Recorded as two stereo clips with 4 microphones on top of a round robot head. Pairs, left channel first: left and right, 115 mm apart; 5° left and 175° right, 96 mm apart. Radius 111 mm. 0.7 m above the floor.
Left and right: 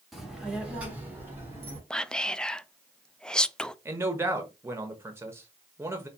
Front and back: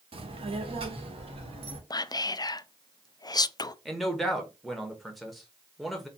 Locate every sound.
0.1 s a child speaking: straight behind, 1.3 m; by 1.8 s 160° right, 2 m
1.9 s whispering: 10° left, 0.5 m
3.9 s a man speaking: 80° right, 1.0 m